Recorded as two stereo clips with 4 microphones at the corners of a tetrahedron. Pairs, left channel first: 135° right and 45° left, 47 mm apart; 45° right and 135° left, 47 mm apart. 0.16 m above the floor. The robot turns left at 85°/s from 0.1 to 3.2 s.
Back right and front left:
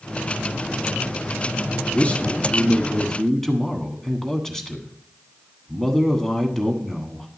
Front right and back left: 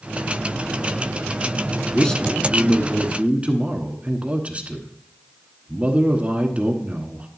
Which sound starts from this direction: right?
A man speaking, at 1.9 s.